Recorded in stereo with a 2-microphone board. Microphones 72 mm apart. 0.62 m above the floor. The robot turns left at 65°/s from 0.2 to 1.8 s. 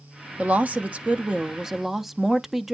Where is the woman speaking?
20° right (ahead or behind), 0.5 m; by 2.7 s 5° right (ahead or behind), 0.5 m.